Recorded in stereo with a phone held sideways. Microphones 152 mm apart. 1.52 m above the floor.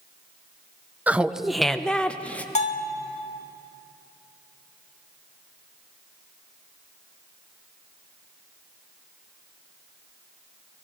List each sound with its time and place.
1.1 s laughter: 10° right (ahead or behind), 0.6 m; by 2.5 s 10° left (ahead or behind), 1.3 m
2.5 s a bell: 45° left (ahead or behind), 1.6 m